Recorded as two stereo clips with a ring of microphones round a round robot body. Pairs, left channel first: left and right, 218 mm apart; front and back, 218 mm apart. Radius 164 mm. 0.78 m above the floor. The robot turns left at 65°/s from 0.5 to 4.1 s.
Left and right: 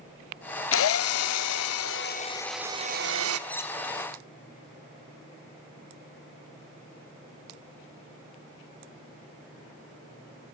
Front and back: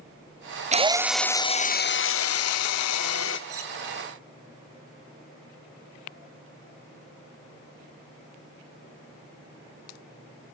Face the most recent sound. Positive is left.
turn(degrees=135)